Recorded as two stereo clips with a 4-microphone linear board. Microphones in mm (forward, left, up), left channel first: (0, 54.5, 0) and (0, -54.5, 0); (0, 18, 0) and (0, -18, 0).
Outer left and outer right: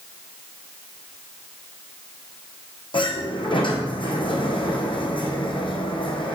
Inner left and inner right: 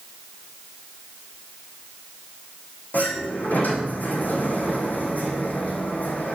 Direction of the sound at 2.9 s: 55° left (ahead or behind).